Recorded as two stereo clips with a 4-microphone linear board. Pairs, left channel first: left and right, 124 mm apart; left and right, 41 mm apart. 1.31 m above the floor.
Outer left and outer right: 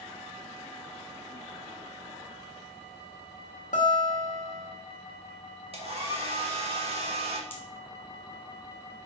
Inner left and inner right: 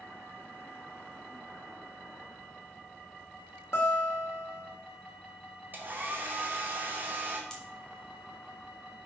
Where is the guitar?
80° left, 1.9 m.